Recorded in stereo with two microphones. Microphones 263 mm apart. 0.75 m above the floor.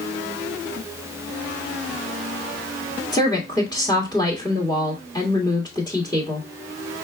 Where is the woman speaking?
15° left (ahead or behind), 1.5 m.